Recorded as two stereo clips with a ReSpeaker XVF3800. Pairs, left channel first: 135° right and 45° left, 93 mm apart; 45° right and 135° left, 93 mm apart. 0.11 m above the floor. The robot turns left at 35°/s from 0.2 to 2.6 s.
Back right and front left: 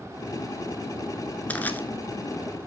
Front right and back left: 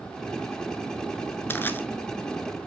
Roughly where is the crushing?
Right.